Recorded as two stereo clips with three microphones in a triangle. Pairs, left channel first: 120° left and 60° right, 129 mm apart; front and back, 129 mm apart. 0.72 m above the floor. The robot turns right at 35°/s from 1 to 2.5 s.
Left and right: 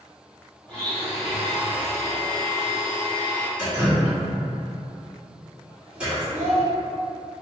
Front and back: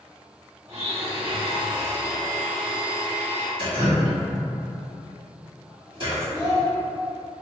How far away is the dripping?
About 1.9 m.